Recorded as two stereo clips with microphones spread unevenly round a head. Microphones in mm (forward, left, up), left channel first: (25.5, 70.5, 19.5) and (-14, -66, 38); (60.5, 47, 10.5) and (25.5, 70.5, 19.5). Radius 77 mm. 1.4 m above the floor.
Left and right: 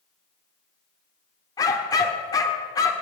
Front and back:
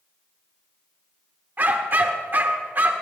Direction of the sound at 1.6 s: 145° left.